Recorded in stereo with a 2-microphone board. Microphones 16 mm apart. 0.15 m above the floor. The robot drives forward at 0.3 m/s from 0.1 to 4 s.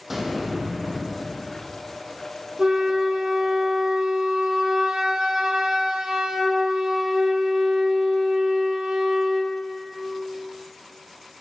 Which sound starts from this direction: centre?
An explosion, at 0.1 s.